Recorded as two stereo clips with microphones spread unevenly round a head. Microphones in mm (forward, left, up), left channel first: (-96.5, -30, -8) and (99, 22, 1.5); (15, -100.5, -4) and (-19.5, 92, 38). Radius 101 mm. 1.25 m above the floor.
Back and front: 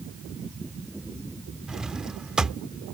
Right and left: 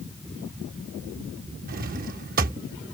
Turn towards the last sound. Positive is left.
turn(degrees=100)